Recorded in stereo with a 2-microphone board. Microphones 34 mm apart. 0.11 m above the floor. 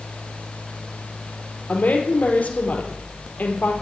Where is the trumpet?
No trumpet in this recording.